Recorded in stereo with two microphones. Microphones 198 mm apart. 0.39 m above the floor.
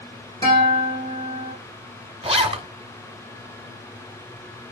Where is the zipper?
30° right (ahead or behind), 1.0 m.